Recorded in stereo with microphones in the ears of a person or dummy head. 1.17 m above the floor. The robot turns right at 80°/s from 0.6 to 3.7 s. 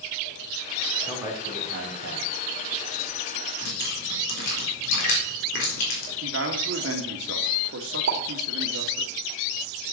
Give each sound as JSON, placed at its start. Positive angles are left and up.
{"t": 1.1, "sound": "a man speaking", "azimuth_deg": -170, "distance_m": 4.0}
{"t": 3.6, "sound": "dripping", "side_deg": 70, "distance_m": 4.0}
{"t": 6.2, "sound": "a man speaking", "side_deg": -70, "distance_m": 2.0}
{"t": 8.1, "sound": "a pop", "side_deg": -65, "distance_m": 2.0}